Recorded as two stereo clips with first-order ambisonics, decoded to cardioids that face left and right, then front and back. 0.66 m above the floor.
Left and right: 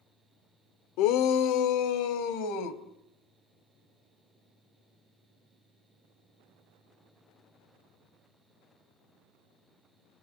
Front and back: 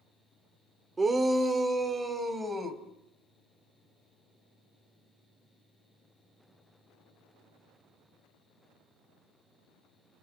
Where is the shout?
105° left, 1.4 m.